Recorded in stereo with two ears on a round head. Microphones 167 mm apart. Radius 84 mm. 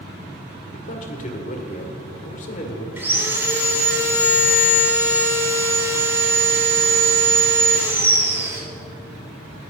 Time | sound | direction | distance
0.7 | a man speaking | 45° left (ahead or behind) | 1.8 m
3.0 | sawing | 10° right (ahead or behind) | 3 m